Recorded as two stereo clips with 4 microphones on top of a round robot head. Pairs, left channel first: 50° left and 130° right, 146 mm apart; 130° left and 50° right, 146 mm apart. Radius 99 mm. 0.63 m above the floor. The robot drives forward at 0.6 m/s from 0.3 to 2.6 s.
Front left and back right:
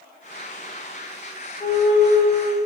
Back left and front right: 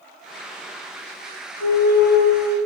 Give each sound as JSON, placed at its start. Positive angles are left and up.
{"t": 1.6, "sound": "a flute", "azimuth_deg": 120, "distance_m": 5.0}